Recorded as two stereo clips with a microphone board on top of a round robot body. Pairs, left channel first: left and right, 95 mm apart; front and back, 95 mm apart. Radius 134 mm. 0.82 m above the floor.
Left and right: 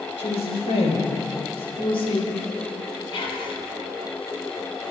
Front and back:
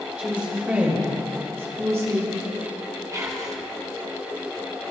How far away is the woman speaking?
About 4 m.